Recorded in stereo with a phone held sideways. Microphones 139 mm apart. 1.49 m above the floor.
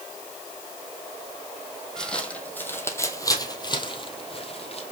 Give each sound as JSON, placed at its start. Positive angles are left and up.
{"t": 2.0, "sound": "footsteps", "side_deg": 5, "distance_m": 2.5}